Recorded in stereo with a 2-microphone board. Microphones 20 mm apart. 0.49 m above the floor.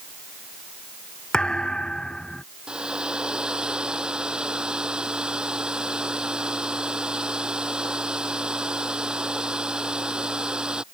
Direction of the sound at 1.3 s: 45° left (ahead or behind).